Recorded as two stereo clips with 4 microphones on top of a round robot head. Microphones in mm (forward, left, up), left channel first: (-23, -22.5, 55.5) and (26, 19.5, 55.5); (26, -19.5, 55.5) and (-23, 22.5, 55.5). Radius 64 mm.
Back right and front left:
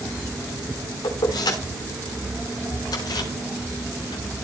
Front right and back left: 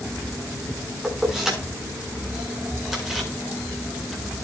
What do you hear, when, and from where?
1.0 s keys jangling: 140° right, 5.5 m; by 4.5 s 135° right, 7.5 m